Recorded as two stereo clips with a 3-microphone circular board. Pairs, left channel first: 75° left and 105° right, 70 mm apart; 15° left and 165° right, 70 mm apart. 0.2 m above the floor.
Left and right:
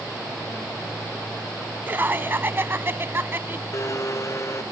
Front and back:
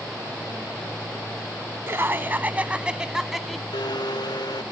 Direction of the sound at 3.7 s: 30° left.